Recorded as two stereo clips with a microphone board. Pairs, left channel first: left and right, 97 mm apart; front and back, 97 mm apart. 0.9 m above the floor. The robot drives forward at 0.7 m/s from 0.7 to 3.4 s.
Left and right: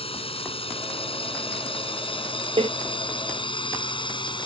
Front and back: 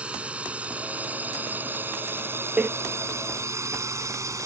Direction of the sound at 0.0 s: 100° left.